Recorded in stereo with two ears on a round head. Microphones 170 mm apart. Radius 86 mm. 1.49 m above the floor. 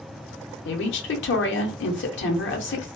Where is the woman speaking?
70° left (ahead or behind), 0.9 m.